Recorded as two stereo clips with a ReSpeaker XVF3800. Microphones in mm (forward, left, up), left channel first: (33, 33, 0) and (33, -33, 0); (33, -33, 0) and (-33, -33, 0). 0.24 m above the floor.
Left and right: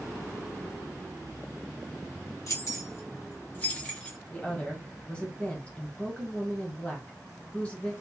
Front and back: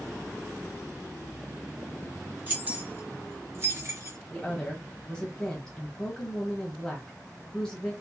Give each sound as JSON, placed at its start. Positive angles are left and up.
{"t": 2.5, "sound": "keys jangling", "azimuth_deg": 120, "distance_m": 1.7}
{"t": 4.3, "sound": "a woman speaking", "azimuth_deg": 60, "distance_m": 1.2}